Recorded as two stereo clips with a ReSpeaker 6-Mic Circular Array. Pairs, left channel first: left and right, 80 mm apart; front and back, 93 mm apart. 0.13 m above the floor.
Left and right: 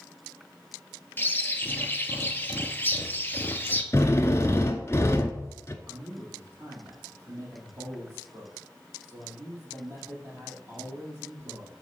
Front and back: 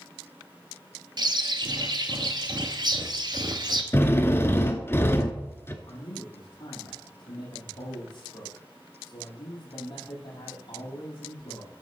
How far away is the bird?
About 0.9 m.